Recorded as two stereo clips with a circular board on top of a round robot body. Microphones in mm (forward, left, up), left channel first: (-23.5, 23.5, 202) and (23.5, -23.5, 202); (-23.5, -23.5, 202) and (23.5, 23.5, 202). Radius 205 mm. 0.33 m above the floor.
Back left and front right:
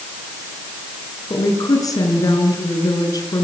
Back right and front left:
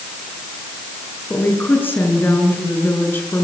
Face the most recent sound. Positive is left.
turn(degrees=165)